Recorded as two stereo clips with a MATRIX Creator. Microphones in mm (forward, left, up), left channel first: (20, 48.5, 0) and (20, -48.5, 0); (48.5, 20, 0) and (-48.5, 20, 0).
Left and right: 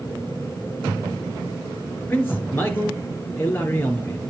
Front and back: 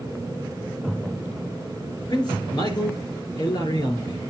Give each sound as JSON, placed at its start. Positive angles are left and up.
{"t": 2.1, "sound": "a man speaking", "azimuth_deg": 25, "distance_m": 2.5}